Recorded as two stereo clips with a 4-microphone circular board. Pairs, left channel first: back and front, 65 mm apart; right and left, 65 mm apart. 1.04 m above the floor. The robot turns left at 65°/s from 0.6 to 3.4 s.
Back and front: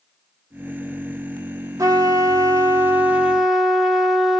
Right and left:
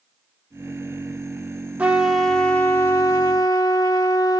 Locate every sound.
1.8 s a trumpet: 20° left, 0.8 m; by 4.4 s 85° right, 0.8 m